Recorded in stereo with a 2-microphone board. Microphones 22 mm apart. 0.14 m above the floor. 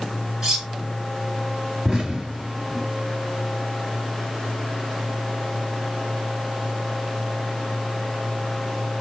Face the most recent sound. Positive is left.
turn(degrees=-10)  # may be behind; listen again after turning